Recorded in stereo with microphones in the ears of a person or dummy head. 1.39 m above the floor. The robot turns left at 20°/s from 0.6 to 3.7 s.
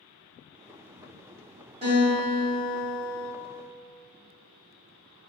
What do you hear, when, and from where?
1.8 s a guitar: 35° right (ahead or behind), 1.2 m; by 3.3 s 5° right (ahead or behind), 1.2 m